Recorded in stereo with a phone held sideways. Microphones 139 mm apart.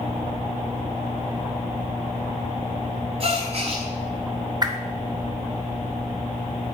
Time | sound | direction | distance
3.2 | a gasp | 45° right (ahead or behind) | 1.5 m
4.6 | a whoosh | 30° right (ahead or behind) | 0.8 m